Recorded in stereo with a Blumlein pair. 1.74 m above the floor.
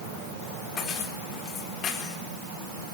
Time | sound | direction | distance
0.8 | keys jangling | 30° left | 3.5 m